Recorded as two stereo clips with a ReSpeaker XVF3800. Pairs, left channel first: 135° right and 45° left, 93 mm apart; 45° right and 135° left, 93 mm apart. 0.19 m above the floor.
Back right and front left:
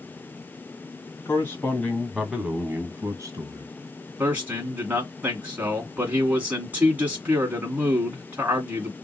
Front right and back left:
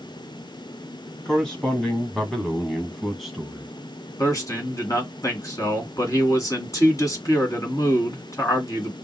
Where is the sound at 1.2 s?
120° right, 1.5 m; by 3.7 s 50° left, 1.8 m.